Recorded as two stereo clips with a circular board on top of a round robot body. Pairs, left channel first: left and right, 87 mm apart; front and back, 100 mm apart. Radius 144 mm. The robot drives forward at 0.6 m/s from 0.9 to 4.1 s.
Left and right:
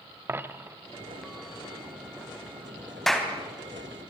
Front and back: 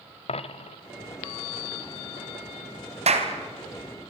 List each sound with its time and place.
0.3 s a dropped coin: 25° right, 1.2 m
3.1 s a clap: 175° left, 3 m